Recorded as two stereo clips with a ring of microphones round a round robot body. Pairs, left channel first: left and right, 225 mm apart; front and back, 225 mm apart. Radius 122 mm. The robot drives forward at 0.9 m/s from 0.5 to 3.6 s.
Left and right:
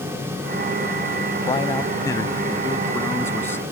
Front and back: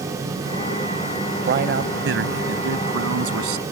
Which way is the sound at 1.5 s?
155° left.